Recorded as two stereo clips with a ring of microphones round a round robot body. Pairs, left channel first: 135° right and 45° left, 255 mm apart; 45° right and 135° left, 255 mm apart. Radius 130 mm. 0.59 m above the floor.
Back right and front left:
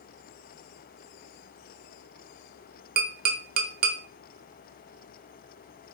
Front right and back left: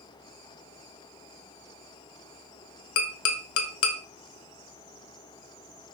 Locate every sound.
3.0 s tapping: 10° right, 0.7 m